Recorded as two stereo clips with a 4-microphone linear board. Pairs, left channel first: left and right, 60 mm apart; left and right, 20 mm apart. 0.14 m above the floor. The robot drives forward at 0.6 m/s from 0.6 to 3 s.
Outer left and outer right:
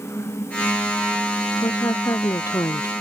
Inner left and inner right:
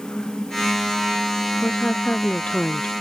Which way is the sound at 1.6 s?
75° left (ahead or behind).